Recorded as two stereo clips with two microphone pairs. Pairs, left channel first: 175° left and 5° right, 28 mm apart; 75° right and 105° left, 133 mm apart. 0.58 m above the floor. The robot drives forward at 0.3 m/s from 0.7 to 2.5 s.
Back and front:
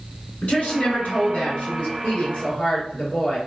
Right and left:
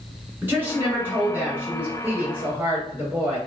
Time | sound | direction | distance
0.4 | a woman speaking | straight behind | 1.4 m